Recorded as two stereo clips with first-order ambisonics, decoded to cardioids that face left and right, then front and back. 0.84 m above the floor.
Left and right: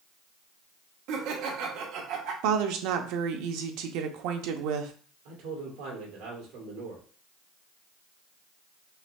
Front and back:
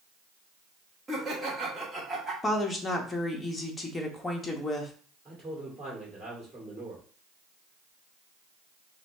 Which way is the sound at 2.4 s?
80° right.